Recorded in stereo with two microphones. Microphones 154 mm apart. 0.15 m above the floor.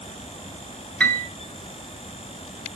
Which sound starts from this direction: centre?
A piano, at 1.0 s.